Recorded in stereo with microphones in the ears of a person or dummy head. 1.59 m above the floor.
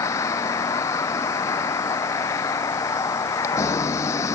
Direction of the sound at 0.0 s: 15° left (ahead or behind).